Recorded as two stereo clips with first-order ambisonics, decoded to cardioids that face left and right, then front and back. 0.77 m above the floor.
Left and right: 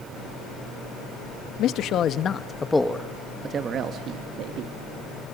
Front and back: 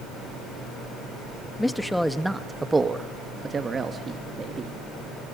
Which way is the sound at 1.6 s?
85° left.